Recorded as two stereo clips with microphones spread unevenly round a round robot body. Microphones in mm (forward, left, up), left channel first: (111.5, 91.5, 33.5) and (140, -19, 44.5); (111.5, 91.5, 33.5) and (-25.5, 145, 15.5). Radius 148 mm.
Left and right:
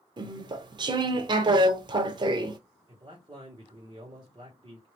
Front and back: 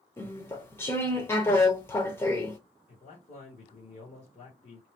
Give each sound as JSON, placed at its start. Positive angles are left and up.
{"t": 0.2, "sound": "chewing", "azimuth_deg": -100, "distance_m": 0.5}
{"t": 2.9, "sound": "a man speaking", "azimuth_deg": -50, "distance_m": 1.4}